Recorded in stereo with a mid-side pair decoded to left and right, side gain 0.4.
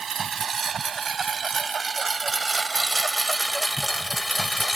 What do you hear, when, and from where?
0.0 s a lawn mower: 50° right; by 4.8 s 15° left